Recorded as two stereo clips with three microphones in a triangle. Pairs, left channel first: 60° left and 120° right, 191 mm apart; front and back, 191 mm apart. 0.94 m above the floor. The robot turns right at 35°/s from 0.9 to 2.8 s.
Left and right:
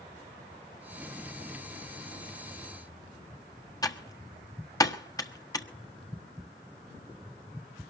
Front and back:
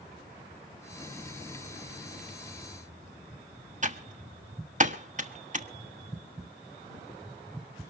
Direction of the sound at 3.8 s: 130° left.